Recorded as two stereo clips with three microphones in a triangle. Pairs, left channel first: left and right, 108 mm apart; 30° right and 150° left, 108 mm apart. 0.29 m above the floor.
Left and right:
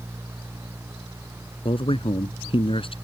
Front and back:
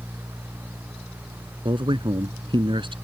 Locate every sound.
1.6 s a man speaking: 115° left